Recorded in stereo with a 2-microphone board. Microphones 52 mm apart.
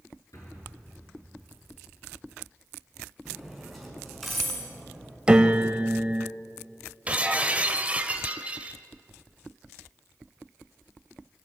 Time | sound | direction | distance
0.3 | an explosion | 75° left (ahead or behind) | 7 m
3.2 | cutlery clinking | centre (ahead or behind) | 5 m
5.3 | a piano | 15° right (ahead or behind) | 1.0 m
7.1 | breaking glass | 25° right (ahead or behind) | 1.4 m